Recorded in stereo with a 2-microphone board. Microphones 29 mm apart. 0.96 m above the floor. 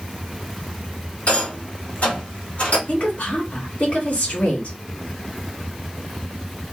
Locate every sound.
1.3 s a rattle: 50° left (ahead or behind), 1.8 m
2.9 s a woman speaking: 55° left (ahead or behind), 1.9 m